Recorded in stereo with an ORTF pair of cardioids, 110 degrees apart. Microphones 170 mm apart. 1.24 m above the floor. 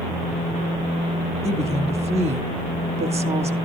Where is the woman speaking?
35° right, 2 m.